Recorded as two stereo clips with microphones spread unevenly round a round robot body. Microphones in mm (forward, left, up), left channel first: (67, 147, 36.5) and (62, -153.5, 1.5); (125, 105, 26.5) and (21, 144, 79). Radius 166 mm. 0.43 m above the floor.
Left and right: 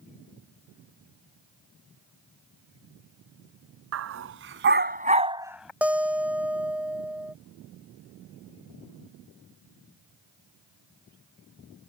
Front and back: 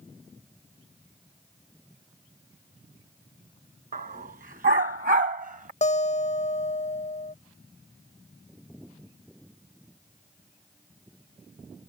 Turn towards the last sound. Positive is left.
turn(degrees=-5)